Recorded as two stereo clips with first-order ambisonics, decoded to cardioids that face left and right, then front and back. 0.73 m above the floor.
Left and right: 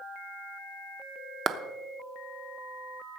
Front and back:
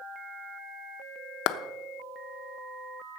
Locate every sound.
1.5 s a clap: 25° right, 0.9 m